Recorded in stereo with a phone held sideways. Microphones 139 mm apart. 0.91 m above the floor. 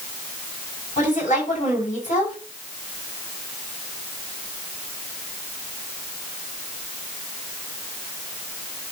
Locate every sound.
1.0 s a woman speaking: 70° left (ahead or behind), 6.5 m